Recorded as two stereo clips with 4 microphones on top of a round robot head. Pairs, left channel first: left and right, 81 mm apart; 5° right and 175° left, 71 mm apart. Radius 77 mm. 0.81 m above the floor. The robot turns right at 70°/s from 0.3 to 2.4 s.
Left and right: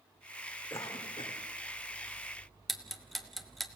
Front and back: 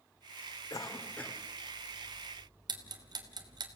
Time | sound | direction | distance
0.7 | a cough | 30° left | 2.5 m
2.7 | ticking | straight behind | 1.7 m